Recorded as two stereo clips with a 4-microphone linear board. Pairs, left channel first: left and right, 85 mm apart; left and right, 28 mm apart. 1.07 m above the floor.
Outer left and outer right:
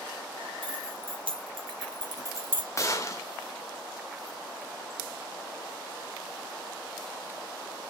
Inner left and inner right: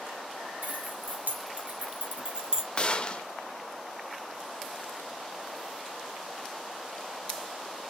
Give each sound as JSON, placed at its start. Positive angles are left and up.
{"t": 0.6, "sound": "keys jangling", "side_deg": -75, "distance_m": 3.0}
{"t": 2.8, "sound": "a gunshot", "side_deg": 35, "distance_m": 1.7}